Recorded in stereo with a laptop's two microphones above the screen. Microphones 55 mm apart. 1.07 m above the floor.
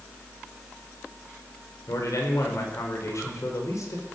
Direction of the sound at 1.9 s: 70° left (ahead or behind).